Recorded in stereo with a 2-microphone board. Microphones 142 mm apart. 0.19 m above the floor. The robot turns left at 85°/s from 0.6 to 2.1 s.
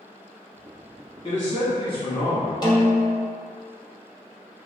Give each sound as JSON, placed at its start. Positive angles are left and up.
{"t": 1.2, "sound": "a man speaking", "azimuth_deg": 115, "distance_m": 1.4}
{"t": 2.6, "sound": "a snare drum", "side_deg": 30, "distance_m": 0.7}